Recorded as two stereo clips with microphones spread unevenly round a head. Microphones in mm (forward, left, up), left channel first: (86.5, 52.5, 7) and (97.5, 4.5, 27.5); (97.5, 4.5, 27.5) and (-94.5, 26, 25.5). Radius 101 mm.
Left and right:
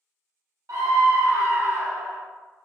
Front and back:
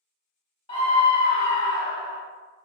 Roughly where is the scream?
Right.